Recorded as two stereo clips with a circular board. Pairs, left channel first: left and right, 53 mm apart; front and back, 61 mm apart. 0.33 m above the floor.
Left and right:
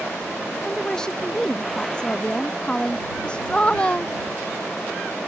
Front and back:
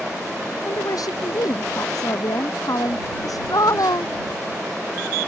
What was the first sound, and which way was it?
A woman speaking, 10° left.